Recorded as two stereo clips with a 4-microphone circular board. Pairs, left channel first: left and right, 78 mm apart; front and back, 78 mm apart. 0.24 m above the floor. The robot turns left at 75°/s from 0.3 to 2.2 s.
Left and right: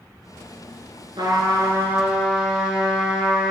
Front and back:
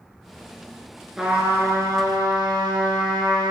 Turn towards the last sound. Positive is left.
turn(degrees=-175)